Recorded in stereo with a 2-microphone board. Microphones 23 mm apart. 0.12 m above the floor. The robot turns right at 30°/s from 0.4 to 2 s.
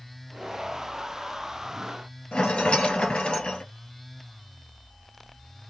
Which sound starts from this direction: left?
A rattle, at 2.3 s.